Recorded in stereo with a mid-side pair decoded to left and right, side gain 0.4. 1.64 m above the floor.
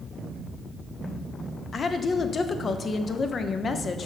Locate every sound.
1.7 s a woman speaking: 45° left, 0.6 m